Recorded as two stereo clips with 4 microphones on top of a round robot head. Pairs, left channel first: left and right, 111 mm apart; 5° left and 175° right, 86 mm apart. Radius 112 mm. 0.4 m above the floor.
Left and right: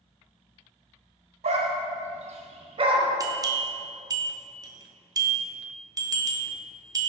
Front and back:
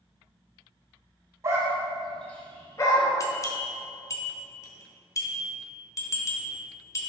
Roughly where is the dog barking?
Behind right.